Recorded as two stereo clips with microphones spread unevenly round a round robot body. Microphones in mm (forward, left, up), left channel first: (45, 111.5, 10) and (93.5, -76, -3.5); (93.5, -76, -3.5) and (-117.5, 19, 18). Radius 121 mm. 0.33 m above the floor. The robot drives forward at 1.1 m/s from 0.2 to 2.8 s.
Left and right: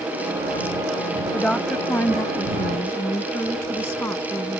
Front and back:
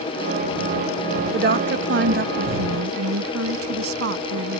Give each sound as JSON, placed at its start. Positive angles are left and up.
{"t": 1.3, "sound": "a woman speaking", "azimuth_deg": -165}